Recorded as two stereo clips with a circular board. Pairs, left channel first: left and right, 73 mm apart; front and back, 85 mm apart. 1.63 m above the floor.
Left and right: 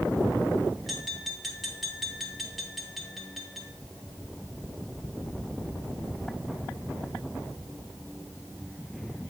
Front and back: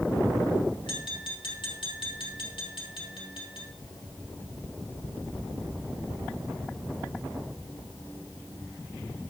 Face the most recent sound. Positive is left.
turn(degrees=0)